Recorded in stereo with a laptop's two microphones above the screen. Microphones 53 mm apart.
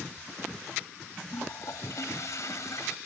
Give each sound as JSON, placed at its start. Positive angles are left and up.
{"t": 1.3, "sound": "a toilet flushing", "side_deg": 65}